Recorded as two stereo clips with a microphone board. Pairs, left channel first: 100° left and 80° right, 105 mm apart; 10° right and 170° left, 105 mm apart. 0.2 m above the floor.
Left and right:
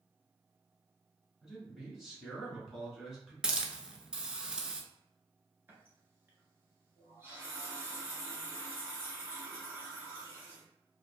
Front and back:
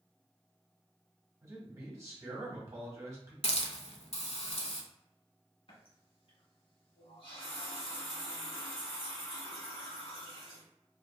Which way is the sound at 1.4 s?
160° right.